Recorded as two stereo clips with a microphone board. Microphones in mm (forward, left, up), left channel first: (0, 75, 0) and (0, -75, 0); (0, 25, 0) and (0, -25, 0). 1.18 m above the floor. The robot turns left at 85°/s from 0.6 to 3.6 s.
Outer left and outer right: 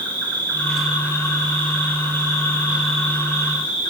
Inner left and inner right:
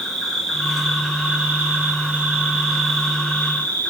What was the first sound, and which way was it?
An insect, 15° left.